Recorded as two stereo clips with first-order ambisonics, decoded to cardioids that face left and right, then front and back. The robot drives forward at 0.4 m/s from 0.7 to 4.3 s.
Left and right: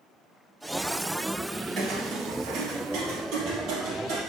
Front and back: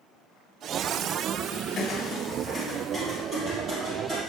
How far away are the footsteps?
About 1.4 m.